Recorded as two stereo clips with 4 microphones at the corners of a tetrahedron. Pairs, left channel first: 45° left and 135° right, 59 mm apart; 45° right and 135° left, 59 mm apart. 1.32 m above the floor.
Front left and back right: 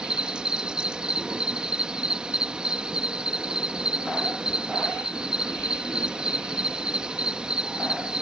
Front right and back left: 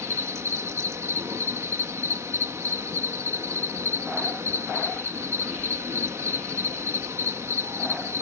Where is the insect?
155° left.